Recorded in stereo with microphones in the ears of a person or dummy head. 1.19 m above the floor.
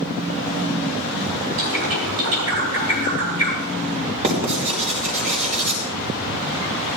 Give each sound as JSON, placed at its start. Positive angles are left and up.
{"t": 1.6, "sound": "a bird", "side_deg": -75, "distance_m": 4.0}
{"t": 4.2, "sound": "writing", "side_deg": -35, "distance_m": 4.5}